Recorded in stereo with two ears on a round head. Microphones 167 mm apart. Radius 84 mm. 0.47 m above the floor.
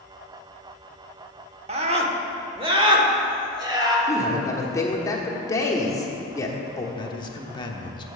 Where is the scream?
35° right (ahead or behind), 1.0 m; by 4.0 s 20° right (ahead or behind), 2 m.